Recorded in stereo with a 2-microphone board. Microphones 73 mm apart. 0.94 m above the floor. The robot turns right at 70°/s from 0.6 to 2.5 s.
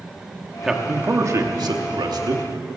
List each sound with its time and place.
0.6 s a man speaking: straight behind, 1.6 m; by 2.7 s 50° right, 1.6 m